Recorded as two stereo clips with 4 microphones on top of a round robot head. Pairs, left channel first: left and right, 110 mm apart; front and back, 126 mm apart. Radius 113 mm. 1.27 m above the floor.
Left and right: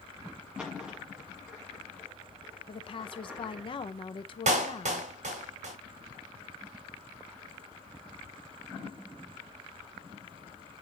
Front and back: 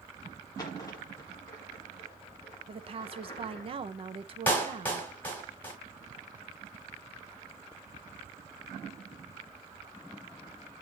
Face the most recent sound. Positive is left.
turn(degrees=-80)